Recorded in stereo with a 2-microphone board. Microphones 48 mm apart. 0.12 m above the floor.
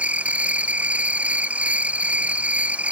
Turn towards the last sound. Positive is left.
turn(degrees=-30)  # may be behind; listen again after turning